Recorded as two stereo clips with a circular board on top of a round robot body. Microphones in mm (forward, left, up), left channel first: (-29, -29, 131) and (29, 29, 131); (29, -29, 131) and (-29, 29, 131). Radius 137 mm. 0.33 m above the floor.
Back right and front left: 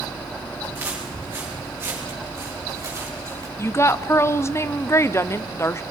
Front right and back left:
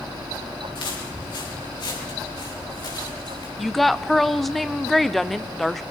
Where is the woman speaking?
130° right, 0.9 m.